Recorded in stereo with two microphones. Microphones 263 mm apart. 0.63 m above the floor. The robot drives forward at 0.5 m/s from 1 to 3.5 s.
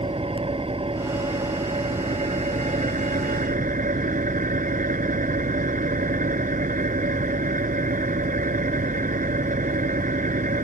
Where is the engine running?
20° right (ahead or behind); by 10.7 s 30° right (ahead or behind).